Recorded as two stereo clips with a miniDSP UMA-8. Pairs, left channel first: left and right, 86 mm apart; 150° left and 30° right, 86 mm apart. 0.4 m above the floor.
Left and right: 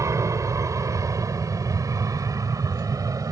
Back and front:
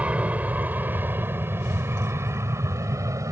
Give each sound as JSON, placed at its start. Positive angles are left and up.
{"t": 0.0, "sound": "an aircraft", "azimuth_deg": -95}